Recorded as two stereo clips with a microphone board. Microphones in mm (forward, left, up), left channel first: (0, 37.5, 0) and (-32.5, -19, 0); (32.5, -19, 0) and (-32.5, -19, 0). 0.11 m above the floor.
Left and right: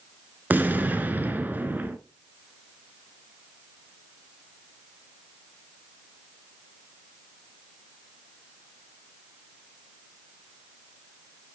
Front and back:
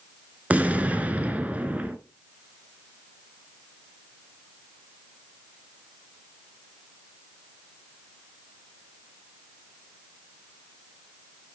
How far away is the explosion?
About 0.9 m.